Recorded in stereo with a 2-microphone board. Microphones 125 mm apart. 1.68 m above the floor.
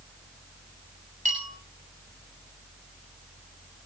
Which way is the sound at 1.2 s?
75° right (ahead or behind).